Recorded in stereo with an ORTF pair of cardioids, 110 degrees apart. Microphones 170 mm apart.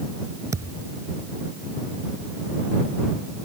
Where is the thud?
20° right.